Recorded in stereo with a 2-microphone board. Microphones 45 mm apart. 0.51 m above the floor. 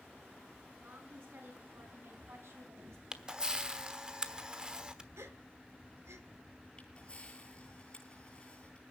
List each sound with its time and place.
0.8 s a woman speaking: 55° right (ahead or behind), 6 m; by 3.0 s 70° right (ahead or behind), 3.5 m
3.1 s a camera shutter: 20° right (ahead or behind), 1.1 m
5.2 s a gasp: 80° right, 1.7 m
6.8 s a camera shutter: 20° left (ahead or behind), 8.5 m